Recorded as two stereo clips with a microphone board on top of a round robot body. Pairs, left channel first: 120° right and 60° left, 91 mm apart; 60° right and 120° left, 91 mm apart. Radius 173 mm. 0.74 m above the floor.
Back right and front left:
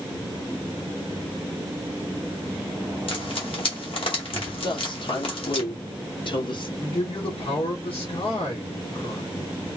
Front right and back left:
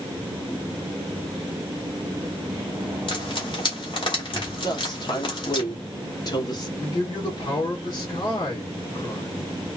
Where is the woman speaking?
100° right, 1.7 m.